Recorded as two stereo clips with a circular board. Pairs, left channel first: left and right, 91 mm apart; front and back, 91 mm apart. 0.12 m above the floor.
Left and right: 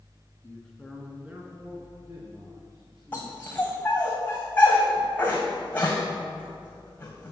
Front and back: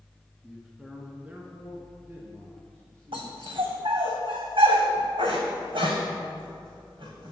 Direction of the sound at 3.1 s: 165° left.